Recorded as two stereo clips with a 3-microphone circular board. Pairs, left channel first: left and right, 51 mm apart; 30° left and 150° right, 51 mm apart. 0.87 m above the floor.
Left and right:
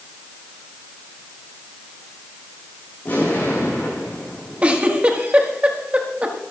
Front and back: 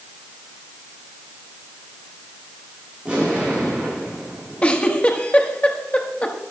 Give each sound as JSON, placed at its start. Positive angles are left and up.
{"t": 3.0, "sound": "an explosion", "azimuth_deg": 140, "distance_m": 8.5}
{"t": 4.6, "sound": "a giggle", "azimuth_deg": -30, "distance_m": 1.6}